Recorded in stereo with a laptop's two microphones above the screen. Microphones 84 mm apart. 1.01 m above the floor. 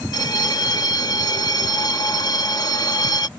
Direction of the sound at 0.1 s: 50° left (ahead or behind).